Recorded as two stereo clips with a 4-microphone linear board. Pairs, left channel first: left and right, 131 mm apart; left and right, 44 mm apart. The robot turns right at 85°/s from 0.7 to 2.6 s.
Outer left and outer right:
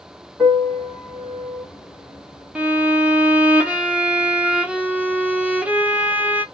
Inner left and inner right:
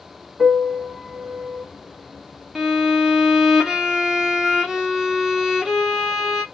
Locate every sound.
0.4 s a piano: centre (ahead or behind), 1.1 m; by 1.6 s 45° right (ahead or behind), 1.1 m
2.5 s a violin: 10° right (ahead or behind), 0.6 m